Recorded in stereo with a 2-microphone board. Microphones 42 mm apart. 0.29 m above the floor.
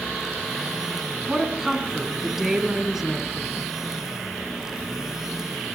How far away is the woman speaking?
About 2.5 m.